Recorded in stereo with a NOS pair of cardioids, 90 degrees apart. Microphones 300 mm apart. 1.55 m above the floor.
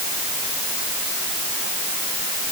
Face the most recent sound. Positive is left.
No sound to turn to.